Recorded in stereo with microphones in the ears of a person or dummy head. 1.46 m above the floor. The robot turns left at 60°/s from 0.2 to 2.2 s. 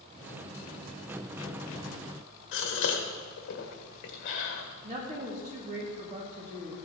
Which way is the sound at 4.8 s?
35° right (ahead or behind).